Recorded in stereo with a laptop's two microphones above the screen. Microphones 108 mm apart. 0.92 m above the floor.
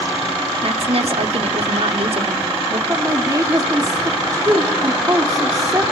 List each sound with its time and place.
0.6 s a woman speaking: 65° right (ahead or behind), 2.5 m
2.9 s a woman speaking: 30° right (ahead or behind), 1.7 m